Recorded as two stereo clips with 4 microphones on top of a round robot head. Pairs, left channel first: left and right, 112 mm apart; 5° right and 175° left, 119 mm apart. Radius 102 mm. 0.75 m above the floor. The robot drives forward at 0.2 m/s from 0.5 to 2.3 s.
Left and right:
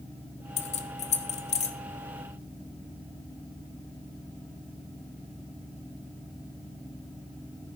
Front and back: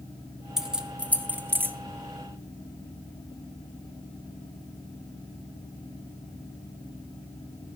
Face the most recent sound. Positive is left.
turn(degrees=110)